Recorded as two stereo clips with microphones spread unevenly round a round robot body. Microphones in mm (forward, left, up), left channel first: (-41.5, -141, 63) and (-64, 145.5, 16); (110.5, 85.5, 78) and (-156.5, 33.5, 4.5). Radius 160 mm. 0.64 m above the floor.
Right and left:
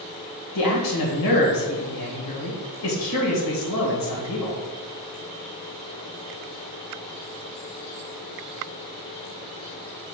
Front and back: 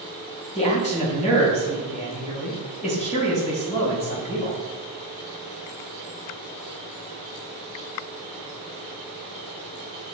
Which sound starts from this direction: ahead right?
A man speaking, at 0.6 s.